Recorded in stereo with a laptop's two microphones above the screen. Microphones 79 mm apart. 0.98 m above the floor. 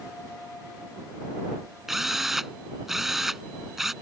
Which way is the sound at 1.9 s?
5° right (ahead or behind).